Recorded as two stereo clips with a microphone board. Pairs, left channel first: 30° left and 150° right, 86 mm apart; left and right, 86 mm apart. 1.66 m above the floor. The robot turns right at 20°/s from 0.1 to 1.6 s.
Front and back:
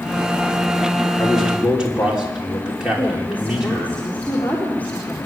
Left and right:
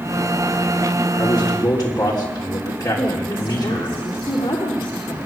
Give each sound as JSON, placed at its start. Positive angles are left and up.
{"t": 1.2, "sound": "a man speaking", "azimuth_deg": 120, "distance_m": 5.0}
{"t": 3.0, "sound": "a woman speaking", "azimuth_deg": 100, "distance_m": 4.0}